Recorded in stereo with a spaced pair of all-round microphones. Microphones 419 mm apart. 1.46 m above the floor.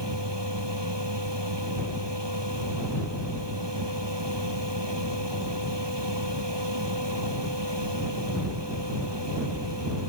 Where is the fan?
75° right (ahead or behind).